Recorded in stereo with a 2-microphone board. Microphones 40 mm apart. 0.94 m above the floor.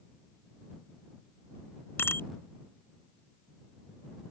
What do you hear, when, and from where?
2.0 s a bicycle bell: 70° left (ahead or behind)